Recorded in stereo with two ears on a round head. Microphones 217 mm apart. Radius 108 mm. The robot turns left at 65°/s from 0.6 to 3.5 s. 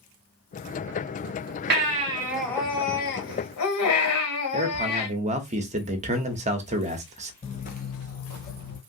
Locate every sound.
1.7 s a baby crying: 135° right, 1.1 m; by 5.1 s 110° left, 1.1 m
4.5 s a man speaking: 30° right (ahead or behind), 0.7 m
7.4 s footsteps: 20° left (ahead or behind), 0.5 m; by 8.8 s 40° left (ahead or behind), 1.7 m